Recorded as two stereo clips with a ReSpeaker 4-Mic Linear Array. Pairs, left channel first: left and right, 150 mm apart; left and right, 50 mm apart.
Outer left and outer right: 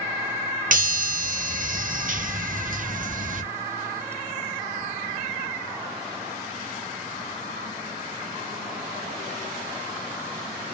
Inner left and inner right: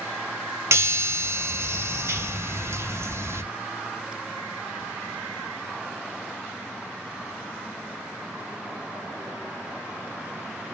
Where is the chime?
65° right (ahead or behind), 0.5 m.